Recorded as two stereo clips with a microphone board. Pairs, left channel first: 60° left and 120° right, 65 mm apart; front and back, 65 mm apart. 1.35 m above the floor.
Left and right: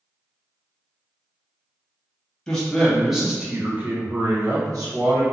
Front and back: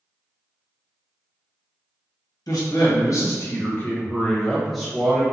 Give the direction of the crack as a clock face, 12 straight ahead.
I don't hear a crack.